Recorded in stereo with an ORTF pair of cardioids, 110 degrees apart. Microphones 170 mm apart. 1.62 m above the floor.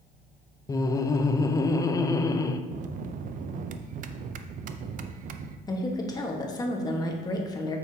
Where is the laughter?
20° left, 0.6 m.